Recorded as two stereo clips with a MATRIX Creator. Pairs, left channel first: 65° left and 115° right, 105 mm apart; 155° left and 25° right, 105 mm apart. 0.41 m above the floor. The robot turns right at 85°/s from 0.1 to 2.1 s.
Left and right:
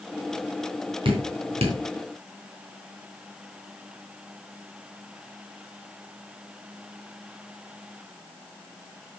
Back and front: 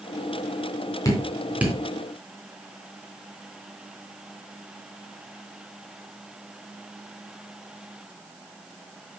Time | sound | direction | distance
1.1 | dripping | 145° right | 3 m